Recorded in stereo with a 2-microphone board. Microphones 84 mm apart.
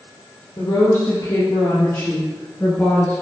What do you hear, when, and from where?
0.6 s a woman speaking: 60° left (ahead or behind), 3 m; by 3.2 s 20° left (ahead or behind), 1.9 m